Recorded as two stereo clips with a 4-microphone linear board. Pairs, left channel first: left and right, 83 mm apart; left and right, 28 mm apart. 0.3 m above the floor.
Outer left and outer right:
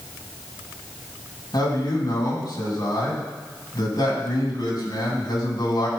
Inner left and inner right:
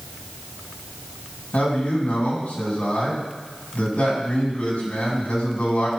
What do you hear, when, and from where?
1.5 s a man speaking: 60° left (ahead or behind), 3 m